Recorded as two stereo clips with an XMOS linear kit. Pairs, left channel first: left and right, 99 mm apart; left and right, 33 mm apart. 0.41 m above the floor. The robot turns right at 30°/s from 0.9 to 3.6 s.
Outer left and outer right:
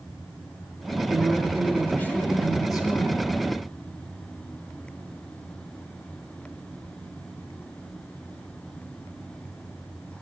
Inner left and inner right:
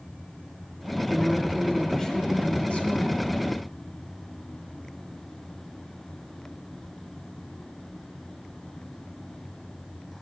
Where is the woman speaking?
10° right, 2 m; by 3.3 s 60° left, 2 m.